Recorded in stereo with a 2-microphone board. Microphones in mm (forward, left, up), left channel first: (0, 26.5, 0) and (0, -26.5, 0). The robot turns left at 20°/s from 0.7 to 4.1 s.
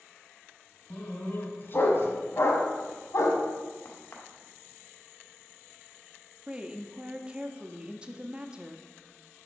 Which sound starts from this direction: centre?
A woman speaking, at 6.5 s.